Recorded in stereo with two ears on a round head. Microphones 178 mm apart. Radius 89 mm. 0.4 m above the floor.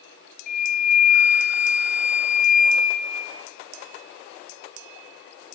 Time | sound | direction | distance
0.5 | a flute | 50° left (ahead or behind) | 2 m